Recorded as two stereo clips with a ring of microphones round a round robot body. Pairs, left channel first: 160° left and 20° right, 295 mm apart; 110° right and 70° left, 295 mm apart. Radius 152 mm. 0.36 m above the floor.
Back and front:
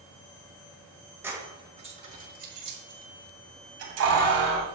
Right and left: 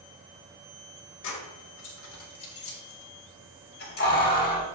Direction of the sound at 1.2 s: 105° right.